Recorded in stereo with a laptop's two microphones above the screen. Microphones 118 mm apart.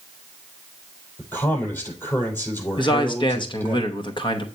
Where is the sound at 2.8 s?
40° left (ahead or behind), 0.8 m.